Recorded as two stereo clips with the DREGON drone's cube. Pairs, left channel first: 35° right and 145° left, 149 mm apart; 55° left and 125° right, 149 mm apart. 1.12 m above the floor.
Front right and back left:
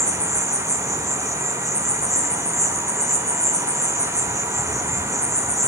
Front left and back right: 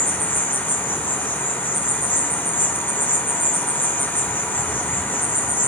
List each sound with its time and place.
0.0 s an insect: straight ahead, 0.9 m